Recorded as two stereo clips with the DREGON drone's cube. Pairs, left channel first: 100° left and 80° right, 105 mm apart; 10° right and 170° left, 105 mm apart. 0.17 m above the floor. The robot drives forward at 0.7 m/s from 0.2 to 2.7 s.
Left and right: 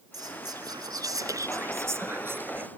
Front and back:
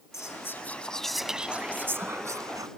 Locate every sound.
0.1 s whispering: 60° right; by 2.7 s 145° right